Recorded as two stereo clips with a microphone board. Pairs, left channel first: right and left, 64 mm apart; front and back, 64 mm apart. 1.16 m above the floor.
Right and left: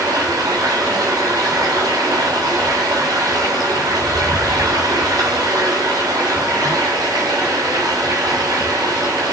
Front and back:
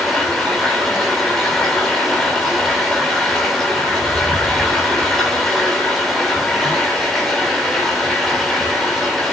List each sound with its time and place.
0.0 s running water: 85° left, 8 m